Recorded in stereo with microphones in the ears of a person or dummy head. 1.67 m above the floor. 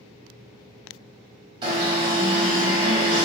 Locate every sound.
1.6 s an alarm: 30° right (ahead or behind), 1.5 m